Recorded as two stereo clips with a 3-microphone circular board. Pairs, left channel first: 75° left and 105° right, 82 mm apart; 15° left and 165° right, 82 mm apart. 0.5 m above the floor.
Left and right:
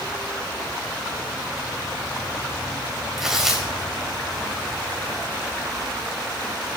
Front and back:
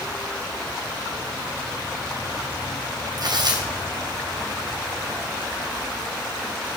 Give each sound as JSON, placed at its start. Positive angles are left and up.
{"t": 3.2, "sound": "tearing paper", "azimuth_deg": 170, "distance_m": 3.0}